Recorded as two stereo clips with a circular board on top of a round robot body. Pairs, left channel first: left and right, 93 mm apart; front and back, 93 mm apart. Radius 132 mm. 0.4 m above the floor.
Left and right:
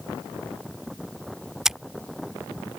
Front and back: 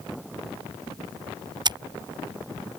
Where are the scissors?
175° right.